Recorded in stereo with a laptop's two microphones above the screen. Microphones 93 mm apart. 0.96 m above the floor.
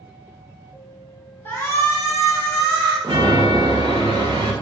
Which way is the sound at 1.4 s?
20° left (ahead or behind).